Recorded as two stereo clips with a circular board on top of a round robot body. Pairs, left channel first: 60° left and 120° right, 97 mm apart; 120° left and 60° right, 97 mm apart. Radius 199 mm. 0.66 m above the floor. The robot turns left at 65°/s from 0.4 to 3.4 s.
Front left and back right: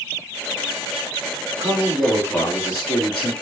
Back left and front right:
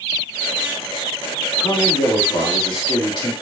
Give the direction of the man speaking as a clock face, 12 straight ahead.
6 o'clock.